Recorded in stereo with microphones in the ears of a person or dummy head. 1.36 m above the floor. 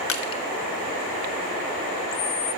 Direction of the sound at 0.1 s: 65° left (ahead or behind).